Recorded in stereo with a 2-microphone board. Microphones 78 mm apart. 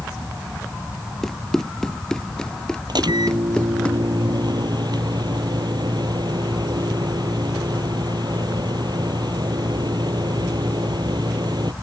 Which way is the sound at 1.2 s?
5° left (ahead or behind).